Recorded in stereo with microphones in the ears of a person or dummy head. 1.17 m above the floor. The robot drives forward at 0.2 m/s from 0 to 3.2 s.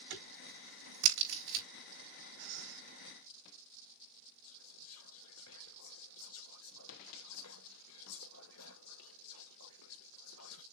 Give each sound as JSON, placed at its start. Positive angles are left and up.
{"t": 0.1, "sound": "a crack", "side_deg": -75, "distance_m": 3.0}
{"t": 2.4, "sound": "breathing", "side_deg": -70, "distance_m": 3.5}
{"t": 4.4, "sound": "whispering", "side_deg": 75, "distance_m": 0.7}